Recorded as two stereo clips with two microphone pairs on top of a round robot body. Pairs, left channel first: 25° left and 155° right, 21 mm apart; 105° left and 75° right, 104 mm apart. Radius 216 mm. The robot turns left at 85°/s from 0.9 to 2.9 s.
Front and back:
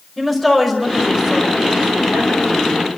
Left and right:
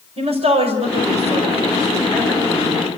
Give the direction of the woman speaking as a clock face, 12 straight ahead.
2 o'clock.